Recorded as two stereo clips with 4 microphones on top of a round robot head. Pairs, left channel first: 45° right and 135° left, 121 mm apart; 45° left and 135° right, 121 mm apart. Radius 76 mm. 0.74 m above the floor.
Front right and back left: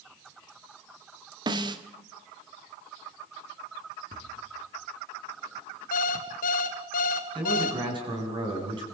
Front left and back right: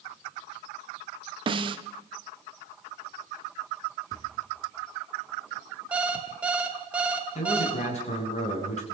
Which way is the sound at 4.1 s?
110° left.